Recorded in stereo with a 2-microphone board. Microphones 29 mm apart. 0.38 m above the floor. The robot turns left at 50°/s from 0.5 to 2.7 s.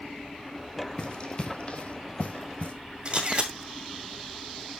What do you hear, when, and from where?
1.0 s running footsteps: 30° left (ahead or behind), 1.3 m; by 2.7 s 45° left (ahead or behind), 1.6 m
3.0 s a camera shutter: 35° right (ahead or behind), 2 m